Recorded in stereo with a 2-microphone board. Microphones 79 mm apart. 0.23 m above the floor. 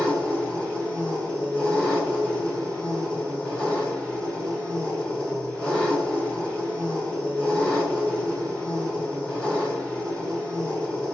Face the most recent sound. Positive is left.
turn(degrees=10)  # may be behind; listen again after turning